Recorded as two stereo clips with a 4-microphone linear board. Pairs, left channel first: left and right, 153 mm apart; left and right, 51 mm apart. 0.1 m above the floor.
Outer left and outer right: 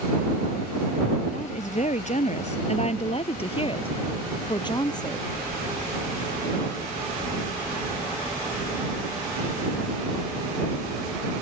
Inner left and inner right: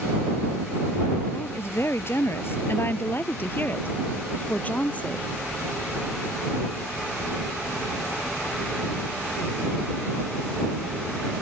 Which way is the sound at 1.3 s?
50° left (ahead or behind).